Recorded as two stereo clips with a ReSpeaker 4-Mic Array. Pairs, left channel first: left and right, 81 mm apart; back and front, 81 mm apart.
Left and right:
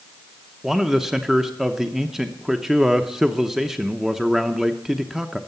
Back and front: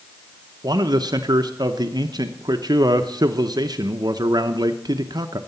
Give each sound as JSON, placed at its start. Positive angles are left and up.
{"t": 0.6, "sound": "a man speaking", "azimuth_deg": -5, "distance_m": 0.8}